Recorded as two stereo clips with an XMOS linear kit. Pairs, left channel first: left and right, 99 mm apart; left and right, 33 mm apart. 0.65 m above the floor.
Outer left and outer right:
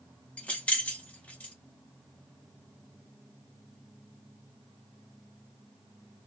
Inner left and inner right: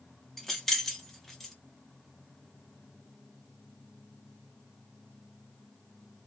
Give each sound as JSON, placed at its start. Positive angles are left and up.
{"t": 0.4, "sound": "keys jangling", "side_deg": 15, "distance_m": 0.7}